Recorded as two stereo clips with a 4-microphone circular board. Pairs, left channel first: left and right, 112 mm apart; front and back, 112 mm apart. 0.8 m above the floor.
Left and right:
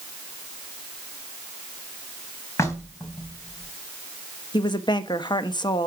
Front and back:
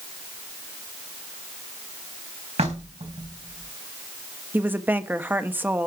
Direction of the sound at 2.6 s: 155° left.